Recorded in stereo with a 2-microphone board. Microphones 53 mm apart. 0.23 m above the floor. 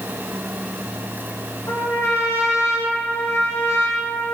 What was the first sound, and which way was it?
A trumpet, 70° left (ahead or behind).